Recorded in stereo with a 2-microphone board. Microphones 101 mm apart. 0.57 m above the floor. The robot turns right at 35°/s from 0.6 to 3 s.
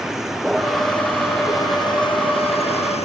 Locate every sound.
0.0 s a vehicle: 5° right (ahead or behind); by 3.0 s 85° left